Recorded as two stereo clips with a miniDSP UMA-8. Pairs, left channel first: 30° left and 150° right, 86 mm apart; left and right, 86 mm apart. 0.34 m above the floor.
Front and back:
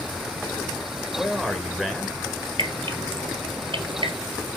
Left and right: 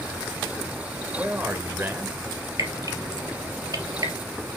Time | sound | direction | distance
1.2 | a man speaking | 65° right | 1.1 m
2.6 | dripping | 135° right | 2.5 m